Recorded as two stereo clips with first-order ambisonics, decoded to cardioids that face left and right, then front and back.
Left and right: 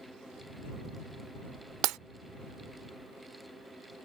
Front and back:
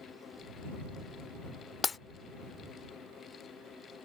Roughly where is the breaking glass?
Ahead right.